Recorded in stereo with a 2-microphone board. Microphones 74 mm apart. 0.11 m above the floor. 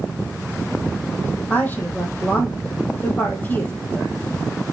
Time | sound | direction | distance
1.5 | a woman speaking | 25° left (ahead or behind) | 3.5 m